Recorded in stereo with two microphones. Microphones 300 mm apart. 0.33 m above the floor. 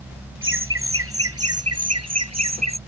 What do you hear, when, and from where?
0.4 s laughter: 40° right (ahead or behind); by 2.8 s 60° right (ahead or behind)